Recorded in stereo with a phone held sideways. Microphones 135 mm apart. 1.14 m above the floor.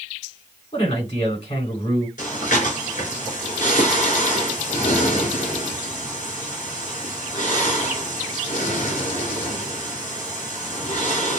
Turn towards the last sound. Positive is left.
turn(degrees=70)  # may be behind; listen again after turning